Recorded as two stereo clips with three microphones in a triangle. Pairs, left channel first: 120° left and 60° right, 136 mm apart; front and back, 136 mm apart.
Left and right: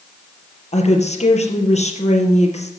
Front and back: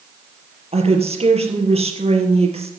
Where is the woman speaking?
145° left, 3.5 m.